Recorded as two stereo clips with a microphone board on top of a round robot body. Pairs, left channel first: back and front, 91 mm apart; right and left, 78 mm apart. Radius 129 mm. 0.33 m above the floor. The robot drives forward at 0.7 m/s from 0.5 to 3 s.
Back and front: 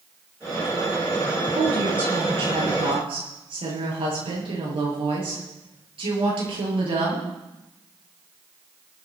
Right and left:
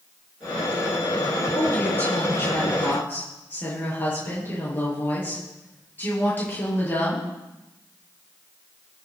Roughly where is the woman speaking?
Ahead.